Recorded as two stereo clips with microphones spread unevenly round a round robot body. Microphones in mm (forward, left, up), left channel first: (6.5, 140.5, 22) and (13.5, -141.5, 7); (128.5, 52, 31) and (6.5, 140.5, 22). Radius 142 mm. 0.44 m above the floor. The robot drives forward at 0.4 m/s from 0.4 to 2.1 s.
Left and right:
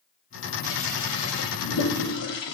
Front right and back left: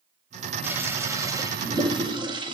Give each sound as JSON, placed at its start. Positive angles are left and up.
{"t": 0.6, "sound": "a toilet flushing", "azimuth_deg": 70, "distance_m": 1.9}